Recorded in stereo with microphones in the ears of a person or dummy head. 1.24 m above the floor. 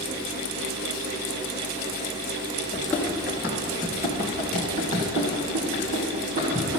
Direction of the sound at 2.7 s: 10° left (ahead or behind).